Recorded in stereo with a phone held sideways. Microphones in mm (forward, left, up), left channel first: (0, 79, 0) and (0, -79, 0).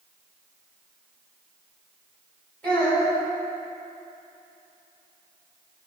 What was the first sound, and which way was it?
A child speaking, 5° left (ahead or behind).